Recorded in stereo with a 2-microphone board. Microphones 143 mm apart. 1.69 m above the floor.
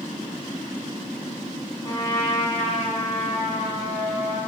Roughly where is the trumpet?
Left.